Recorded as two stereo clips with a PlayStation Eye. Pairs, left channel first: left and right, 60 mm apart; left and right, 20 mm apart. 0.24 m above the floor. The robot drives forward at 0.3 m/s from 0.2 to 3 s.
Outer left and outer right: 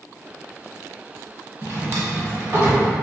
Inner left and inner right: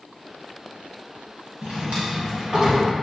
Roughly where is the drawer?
Right.